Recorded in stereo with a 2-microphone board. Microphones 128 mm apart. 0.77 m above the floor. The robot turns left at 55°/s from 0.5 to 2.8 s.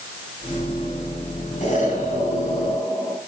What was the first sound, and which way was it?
An explosion, 110° left.